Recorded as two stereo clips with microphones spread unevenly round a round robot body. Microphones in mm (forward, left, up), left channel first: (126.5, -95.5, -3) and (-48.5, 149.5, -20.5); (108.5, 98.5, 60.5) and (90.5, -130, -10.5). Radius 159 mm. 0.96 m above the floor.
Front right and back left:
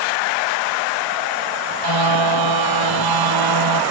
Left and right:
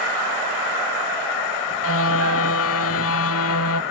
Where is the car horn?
130° left.